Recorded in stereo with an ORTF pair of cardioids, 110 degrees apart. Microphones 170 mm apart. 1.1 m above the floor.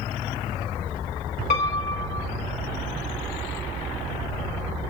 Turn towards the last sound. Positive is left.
turn(degrees=45)